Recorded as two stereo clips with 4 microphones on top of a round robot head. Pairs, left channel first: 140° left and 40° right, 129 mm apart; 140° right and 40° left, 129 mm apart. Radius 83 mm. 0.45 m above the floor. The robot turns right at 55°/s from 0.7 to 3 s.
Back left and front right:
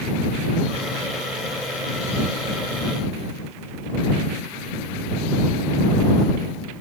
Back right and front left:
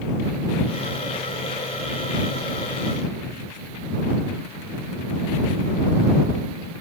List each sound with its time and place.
Only background noise.